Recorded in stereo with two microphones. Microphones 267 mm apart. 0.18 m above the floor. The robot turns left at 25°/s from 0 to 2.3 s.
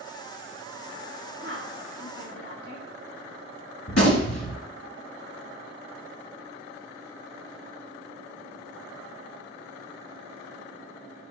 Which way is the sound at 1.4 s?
50° right (ahead or behind).